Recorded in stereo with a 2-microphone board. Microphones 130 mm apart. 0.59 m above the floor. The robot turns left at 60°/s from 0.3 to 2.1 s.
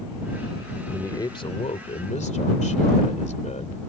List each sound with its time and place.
0.9 s a man speaking: 160° left; by 3.8 s 90° left